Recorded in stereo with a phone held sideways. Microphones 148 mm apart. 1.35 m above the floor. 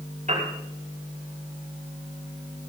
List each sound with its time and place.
0.3 s a piano: 55° right (ahead or behind), 5.5 m